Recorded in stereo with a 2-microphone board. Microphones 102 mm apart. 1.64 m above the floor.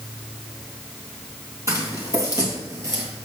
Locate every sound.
1.7 s footsteps: 30° right (ahead or behind), 2.5 m